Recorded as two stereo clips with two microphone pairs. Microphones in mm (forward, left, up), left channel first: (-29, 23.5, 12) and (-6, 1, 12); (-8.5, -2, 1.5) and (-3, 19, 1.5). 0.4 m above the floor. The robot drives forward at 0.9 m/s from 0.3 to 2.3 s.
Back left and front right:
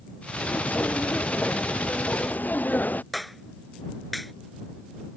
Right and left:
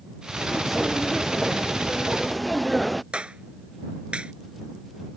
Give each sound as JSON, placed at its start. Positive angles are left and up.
{"t": 0.4, "sound": "footsteps", "azimuth_deg": 160}
{"t": 3.1, "sound": "a clap", "azimuth_deg": 45}